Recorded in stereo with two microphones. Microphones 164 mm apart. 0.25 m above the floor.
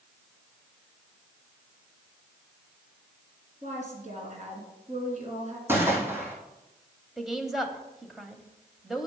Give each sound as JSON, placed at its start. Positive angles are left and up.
{"t": 3.6, "sound": "a woman speaking", "side_deg": -45, "distance_m": 3.0}
{"t": 5.7, "sound": "a gunshot", "side_deg": -15, "distance_m": 1.9}
{"t": 7.2, "sound": "a woman speaking", "side_deg": 0, "distance_m": 0.9}